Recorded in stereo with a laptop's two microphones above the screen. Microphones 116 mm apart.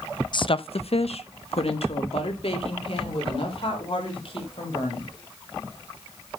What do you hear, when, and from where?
0.3 s a woman speaking: 45° left (ahead or behind), 0.6 m; by 5.1 s 55° left (ahead or behind), 4.5 m